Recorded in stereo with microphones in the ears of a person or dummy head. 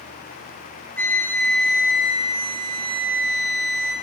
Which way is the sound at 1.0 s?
15° left (ahead or behind).